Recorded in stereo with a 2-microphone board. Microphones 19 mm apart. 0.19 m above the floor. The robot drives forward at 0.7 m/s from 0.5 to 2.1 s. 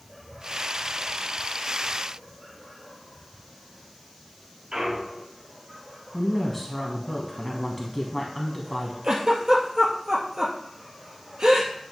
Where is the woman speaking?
5° left (ahead or behind), 1.2 m.